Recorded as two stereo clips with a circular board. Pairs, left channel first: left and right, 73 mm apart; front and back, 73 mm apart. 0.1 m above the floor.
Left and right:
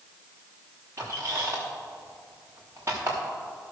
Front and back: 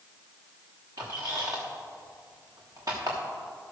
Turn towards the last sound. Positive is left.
turn(degrees=-145)